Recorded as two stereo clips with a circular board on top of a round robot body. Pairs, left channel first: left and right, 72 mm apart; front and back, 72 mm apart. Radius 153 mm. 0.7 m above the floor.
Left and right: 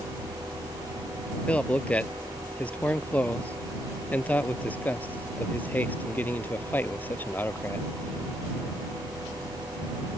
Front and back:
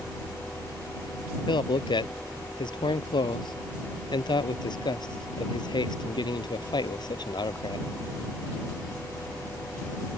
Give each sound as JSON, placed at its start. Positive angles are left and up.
{"t": 1.5, "sound": "a man speaking", "azimuth_deg": 15}